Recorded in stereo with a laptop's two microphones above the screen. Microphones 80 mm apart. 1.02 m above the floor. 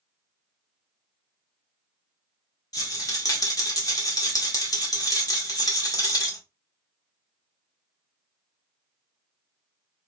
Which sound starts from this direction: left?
A rattle, at 2.7 s.